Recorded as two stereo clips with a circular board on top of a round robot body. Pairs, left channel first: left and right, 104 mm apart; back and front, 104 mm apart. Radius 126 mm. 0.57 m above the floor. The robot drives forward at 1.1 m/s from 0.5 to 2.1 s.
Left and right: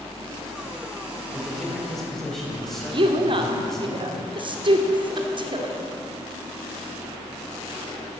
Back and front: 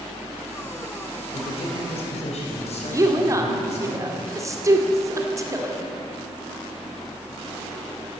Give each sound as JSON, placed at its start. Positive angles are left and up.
{"t": 1.3, "sound": "a man speaking", "azimuth_deg": 175, "distance_m": 3.0}
{"t": 2.9, "sound": "a woman speaking", "azimuth_deg": -55, "distance_m": 2.0}